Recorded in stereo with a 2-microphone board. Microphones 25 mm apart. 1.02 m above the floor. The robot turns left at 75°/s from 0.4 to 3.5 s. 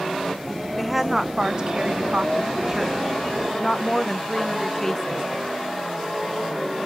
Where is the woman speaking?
Straight ahead, 0.7 m; by 5.2 s 155° left, 0.7 m.